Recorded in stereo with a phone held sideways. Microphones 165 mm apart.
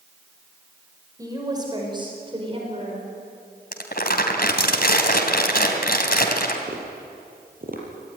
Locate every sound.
1.2 s a woman speaking: 20° right (ahead or behind), 5.5 m; by 3.1 s 40° right (ahead or behind), 4.5 m
3.7 s crumpling: 70° left (ahead or behind), 3 m
6.7 s tapping: 60° right (ahead or behind), 5 m